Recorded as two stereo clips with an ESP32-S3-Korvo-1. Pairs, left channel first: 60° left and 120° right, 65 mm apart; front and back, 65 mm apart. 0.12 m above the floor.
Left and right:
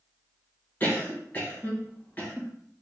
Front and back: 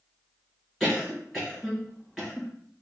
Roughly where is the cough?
Left.